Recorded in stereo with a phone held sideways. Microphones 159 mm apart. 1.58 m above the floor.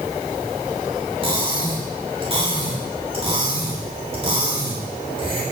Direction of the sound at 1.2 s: 40° right (ahead or behind).